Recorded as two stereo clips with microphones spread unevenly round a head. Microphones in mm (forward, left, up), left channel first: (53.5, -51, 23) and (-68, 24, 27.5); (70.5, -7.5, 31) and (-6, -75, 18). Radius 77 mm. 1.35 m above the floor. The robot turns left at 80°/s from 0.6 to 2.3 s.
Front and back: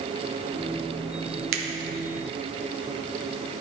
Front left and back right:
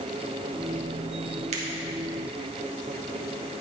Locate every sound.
1.5 s a finger snap: 175° left, 0.9 m; by 1.6 s 165° left, 0.9 m